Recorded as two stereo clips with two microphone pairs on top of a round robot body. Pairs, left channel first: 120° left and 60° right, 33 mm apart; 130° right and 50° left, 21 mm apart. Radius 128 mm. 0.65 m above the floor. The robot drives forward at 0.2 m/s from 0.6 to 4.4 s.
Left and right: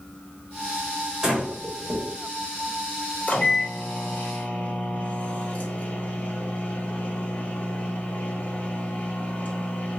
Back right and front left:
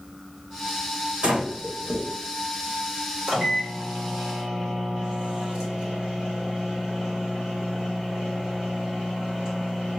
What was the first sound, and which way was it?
Breathing, 25° left.